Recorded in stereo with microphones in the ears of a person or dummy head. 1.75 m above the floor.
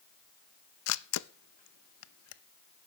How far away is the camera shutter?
About 0.7 m.